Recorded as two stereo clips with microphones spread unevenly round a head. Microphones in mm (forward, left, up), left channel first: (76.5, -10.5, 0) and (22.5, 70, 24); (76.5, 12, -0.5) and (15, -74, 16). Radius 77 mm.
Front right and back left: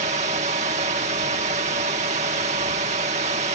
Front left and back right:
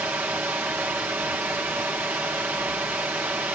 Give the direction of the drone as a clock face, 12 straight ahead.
7 o'clock.